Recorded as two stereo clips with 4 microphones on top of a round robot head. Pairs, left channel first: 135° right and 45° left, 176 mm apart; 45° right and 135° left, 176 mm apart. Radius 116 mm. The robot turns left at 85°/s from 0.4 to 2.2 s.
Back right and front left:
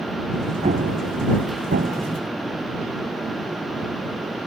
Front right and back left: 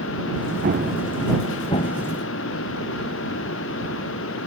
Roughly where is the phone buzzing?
I don't hear a phone buzzing.